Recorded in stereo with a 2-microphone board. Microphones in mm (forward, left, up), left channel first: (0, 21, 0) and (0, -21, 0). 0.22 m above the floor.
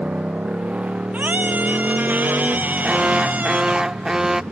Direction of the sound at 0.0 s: 30° right (ahead or behind).